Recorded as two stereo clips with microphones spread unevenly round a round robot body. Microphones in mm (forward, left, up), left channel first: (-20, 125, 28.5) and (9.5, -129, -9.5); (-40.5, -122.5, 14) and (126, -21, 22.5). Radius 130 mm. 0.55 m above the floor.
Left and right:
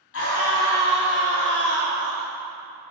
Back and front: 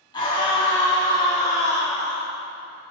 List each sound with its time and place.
0.1 s a scream: 135° left, 5 m; by 2.3 s 130° left, 4 m